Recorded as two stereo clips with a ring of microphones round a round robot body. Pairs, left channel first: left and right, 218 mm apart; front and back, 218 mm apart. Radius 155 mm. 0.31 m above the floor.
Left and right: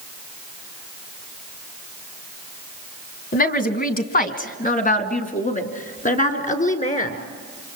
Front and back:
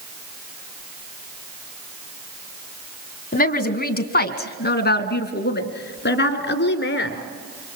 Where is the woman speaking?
45° left, 2.5 m; by 7.2 s 35° left, 4 m.